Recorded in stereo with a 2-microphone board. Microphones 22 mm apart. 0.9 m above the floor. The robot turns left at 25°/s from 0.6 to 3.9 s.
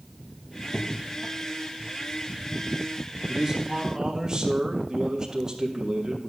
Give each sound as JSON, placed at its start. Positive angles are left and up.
{"t": 0.6, "sound": "a crack", "side_deg": 25, "distance_m": 1.1}
{"t": 3.3, "sound": "a man speaking", "side_deg": -20, "distance_m": 1.6}